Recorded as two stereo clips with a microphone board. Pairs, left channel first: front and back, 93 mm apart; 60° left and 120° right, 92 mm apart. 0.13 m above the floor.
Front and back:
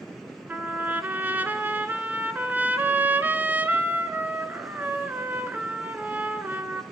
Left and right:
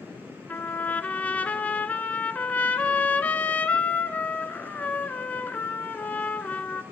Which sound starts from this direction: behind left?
A trumpet, at 0.5 s.